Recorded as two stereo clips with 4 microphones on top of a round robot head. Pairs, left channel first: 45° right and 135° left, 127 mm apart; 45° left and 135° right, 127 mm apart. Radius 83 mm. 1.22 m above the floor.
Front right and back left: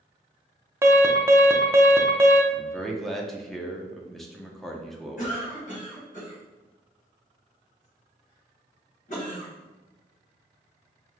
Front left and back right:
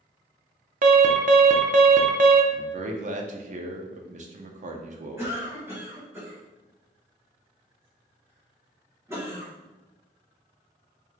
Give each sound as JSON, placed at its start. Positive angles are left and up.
{"t": 0.8, "sound": "an alarm", "azimuth_deg": -155, "distance_m": 0.5}
{"t": 2.5, "sound": "a man speaking", "azimuth_deg": -135, "distance_m": 0.7}
{"t": 5.2, "sound": "a cough", "azimuth_deg": -65, "distance_m": 1.6}